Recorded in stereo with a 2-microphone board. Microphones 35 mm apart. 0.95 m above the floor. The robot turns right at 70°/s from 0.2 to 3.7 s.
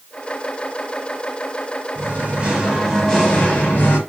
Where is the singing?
75° right, 1.5 m; by 4.0 s 50° left, 1.5 m.